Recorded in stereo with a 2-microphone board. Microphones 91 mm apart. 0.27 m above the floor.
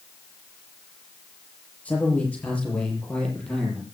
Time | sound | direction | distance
1.9 | a man speaking | 15° left (ahead or behind) | 8.5 m